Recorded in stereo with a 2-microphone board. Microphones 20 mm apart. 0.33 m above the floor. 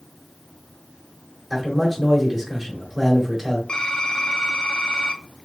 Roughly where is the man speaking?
Centre.